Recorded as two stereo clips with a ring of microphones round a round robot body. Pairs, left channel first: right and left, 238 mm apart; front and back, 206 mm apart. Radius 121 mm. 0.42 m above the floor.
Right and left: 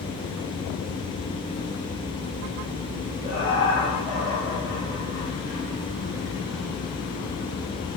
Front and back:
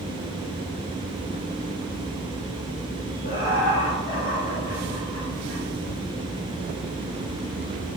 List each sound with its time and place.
3.2 s laughter: 30° right, 1.6 m; by 5.6 s straight ahead, 3 m